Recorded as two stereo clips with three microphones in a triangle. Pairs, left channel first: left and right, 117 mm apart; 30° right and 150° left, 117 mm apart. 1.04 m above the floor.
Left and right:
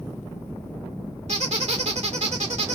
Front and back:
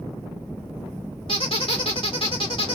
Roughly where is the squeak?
Right.